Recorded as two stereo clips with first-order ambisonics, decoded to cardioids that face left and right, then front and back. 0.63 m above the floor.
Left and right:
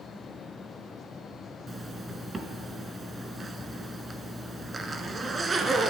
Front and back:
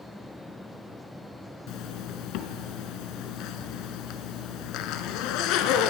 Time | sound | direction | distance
1.7 | a zipper | 15° right | 1.2 m